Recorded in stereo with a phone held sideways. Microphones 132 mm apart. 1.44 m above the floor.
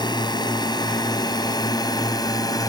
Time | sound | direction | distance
0.0 | a drone | 35° left (ahead or behind) | ?